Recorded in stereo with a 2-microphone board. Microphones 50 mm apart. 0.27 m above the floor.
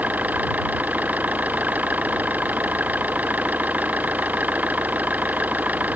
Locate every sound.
0.0 s an engine running: 35° right (ahead or behind)